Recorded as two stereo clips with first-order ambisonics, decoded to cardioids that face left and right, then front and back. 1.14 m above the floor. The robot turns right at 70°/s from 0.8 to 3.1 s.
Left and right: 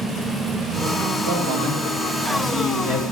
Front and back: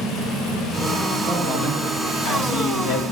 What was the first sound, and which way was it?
A man speaking, 80° right.